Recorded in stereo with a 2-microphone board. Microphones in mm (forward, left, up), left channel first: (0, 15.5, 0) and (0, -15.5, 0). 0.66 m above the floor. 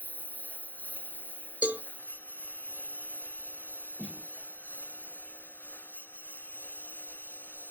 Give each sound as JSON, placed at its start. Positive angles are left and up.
{"t": 0.0, "sound": "a lawn mower", "side_deg": 70}
{"t": 1.6, "sound": "a cowbell", "side_deg": -60}
{"t": 4.0, "sound": "a snare drum", "side_deg": -35}